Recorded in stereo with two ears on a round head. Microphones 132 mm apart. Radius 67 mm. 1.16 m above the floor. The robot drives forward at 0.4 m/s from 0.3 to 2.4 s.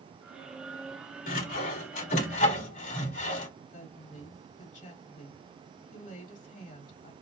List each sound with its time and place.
1.3 s sawing: 65° left (ahead or behind), 2.5 m; by 3.5 s 55° left (ahead or behind), 3 m
3.7 s a woman speaking: 55° left (ahead or behind), 2.5 m